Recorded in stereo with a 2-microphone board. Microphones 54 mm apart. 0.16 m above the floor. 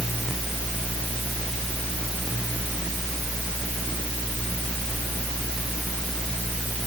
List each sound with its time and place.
Only background noise.